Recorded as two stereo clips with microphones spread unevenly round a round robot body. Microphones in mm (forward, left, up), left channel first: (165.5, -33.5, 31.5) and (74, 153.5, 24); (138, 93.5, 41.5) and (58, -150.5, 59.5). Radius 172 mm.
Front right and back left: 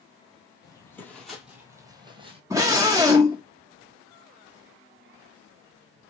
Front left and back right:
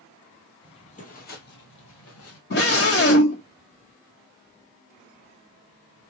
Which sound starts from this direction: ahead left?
A scream, at 2.5 s.